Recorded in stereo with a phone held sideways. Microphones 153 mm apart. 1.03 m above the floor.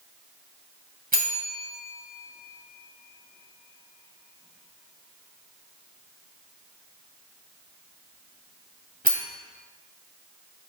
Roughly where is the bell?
Right.